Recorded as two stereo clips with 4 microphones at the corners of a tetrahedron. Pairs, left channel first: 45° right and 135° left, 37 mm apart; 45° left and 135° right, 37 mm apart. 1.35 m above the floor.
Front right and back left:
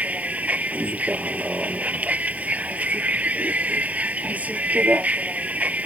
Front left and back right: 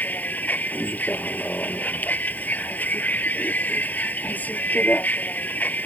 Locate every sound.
0.0 s a vehicle: 90° left